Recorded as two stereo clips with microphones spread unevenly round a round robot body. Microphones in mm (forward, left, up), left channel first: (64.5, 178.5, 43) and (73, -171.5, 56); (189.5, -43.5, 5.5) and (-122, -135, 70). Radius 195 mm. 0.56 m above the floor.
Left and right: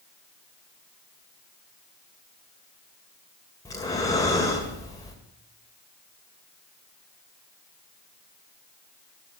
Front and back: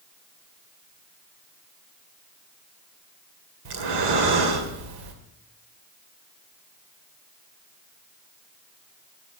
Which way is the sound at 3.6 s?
170° left.